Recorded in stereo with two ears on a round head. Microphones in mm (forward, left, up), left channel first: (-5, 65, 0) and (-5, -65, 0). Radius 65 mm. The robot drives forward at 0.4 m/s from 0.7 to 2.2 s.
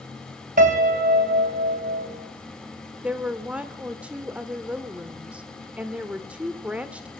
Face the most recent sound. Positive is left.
turn(degrees=-10)  # may be behind; listen again after turning